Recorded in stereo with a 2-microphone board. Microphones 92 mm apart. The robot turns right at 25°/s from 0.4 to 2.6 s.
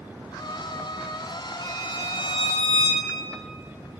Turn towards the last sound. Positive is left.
turn(degrees=75)  # may be behind; listen again after turning